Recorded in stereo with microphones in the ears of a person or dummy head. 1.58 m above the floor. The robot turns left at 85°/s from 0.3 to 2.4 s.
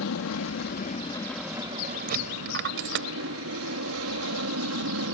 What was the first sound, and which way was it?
An aircraft, 95° left.